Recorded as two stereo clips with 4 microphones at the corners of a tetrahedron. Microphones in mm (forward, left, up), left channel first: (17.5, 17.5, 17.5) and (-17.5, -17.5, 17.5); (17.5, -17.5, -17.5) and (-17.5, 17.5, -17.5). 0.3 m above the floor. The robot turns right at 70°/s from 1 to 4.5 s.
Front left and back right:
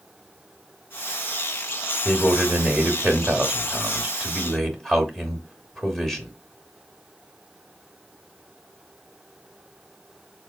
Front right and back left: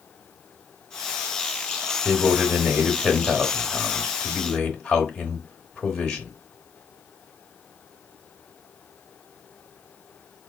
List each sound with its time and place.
2.0 s a man speaking: 165° left, 0.9 m; by 6.3 s 25° right, 0.9 m